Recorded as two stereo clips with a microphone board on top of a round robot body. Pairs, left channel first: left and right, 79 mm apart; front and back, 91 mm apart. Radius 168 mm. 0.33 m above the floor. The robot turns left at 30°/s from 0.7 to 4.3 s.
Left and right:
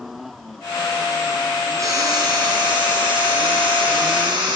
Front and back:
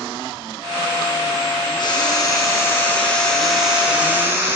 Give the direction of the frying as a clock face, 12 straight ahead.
1 o'clock.